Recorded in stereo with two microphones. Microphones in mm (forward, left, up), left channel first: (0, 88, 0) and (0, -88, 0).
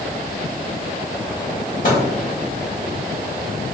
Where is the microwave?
50° left (ahead or behind), 1.7 m.